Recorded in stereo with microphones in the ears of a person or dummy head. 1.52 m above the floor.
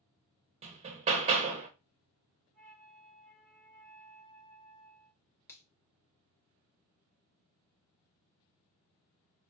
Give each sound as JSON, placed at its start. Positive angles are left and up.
{"t": 0.6, "sound": "hammering", "side_deg": -30, "distance_m": 0.9}
{"t": 2.5, "sound": "a flute", "side_deg": 40, "distance_m": 2.5}
{"t": 5.5, "sound": "a finger snap", "side_deg": 20, "distance_m": 1.1}